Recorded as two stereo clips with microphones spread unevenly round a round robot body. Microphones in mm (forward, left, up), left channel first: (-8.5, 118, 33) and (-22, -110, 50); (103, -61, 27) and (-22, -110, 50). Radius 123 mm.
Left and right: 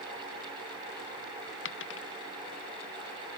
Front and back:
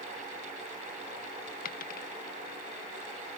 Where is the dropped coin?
45° left.